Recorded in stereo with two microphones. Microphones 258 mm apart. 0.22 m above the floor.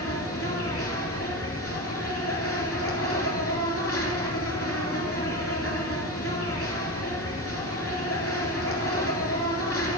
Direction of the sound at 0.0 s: 60° left (ahead or behind).